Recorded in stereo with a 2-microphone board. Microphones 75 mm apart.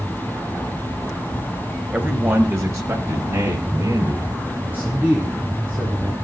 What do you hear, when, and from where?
1.9 s a man speaking: 20° right (ahead or behind), 1.4 m; by 4.3 s 50° right (ahead or behind), 3 m
4.6 s a man speaking: 25° right (ahead or behind), 3 m